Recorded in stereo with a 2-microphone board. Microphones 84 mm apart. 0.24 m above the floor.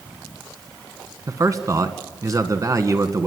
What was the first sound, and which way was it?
A man speaking, 40° right (ahead or behind).